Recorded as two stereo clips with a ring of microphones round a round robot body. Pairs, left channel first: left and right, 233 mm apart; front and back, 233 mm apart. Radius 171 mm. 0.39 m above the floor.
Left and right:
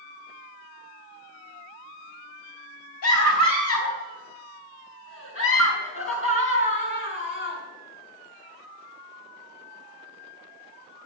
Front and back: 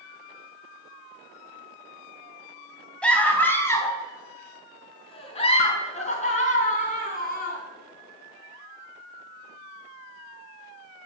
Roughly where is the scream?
Left.